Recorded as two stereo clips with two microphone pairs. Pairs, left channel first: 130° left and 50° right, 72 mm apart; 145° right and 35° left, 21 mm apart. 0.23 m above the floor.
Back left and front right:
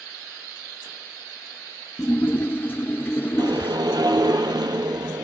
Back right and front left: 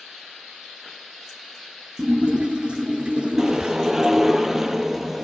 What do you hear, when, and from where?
2.0 s a splash: 70° left, 2.5 m
3.4 s a whoosh: 30° right, 1.3 m